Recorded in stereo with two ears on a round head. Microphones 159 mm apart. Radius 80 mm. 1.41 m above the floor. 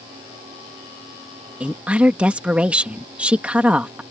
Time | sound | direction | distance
1.6 | a woman speaking | 5° right (ahead or behind) | ?